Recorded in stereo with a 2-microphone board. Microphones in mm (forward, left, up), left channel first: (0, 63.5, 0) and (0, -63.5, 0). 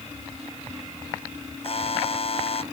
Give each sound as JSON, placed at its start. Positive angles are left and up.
{"t": 1.6, "sound": "a buzzer", "side_deg": 50}